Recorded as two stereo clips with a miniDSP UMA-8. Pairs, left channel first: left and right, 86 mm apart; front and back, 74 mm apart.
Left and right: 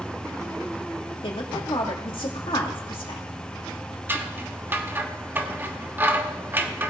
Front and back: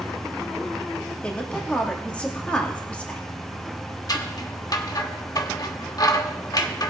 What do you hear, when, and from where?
1.2 s a woman speaking: 70° left, 2.5 m
4.1 s scissors: 25° right, 1.1 m